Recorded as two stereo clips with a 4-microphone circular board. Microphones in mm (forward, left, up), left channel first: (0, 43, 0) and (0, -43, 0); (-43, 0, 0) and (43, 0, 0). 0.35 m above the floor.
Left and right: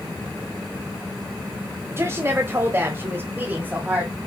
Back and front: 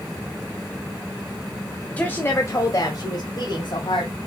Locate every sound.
1.9 s a woman speaking: 115° right, 1.1 m; by 4.2 s 160° right, 2 m